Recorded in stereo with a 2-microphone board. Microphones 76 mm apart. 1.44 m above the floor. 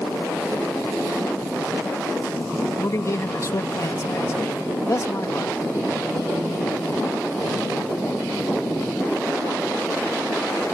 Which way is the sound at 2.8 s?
40° left (ahead or behind).